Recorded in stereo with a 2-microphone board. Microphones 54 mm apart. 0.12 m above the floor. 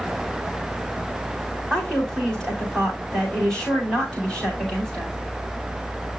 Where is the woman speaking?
15° left (ahead or behind), 8.5 m.